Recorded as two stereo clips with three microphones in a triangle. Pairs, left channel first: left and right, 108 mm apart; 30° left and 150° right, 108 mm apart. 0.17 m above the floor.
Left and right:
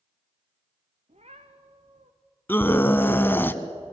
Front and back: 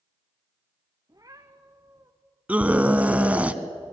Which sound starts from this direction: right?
A cat meowing, at 1.1 s.